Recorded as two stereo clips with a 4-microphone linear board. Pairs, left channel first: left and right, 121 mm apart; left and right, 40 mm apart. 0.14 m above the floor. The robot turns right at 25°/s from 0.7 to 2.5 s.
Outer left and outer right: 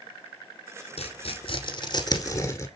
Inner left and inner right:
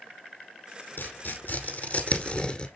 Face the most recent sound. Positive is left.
turn(degrees=25)  # may be behind; listen again after turning